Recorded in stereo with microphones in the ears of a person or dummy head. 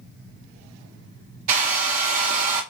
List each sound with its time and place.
1.5 s a hair dryer: 40° right (ahead or behind), 0.7 m